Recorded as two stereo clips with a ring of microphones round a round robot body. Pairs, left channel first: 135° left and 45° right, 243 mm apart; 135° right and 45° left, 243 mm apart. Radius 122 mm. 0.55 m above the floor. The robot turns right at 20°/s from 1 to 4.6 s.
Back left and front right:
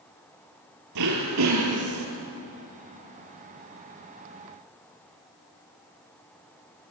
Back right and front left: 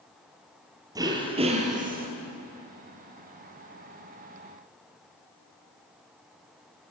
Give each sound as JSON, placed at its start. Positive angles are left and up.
{"t": 0.9, "sound": "throat clearing", "azimuth_deg": -30, "distance_m": 3.5}